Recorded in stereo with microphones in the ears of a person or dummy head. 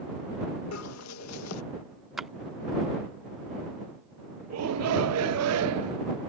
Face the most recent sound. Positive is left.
turn(degrees=-80)